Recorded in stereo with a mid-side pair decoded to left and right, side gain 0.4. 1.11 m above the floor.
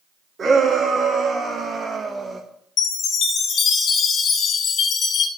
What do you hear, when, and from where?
0.4 s a shout: 45° right, 3 m; by 2.4 s 30° right, 1.5 m
2.8 s a chime: 70° left, 1.8 m